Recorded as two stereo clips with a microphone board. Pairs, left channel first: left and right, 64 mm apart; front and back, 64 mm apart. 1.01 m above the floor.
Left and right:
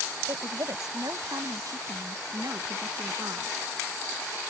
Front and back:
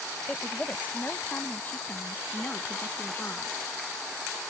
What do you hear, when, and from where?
0.3 s a woman speaking: 70° right; by 3.6 s 60° right